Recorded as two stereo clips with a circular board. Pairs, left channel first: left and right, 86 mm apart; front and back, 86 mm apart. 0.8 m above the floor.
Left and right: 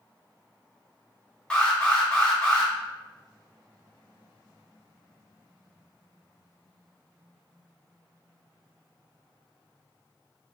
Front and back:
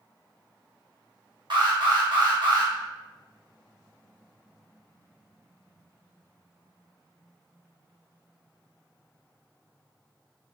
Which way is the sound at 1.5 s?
170° left.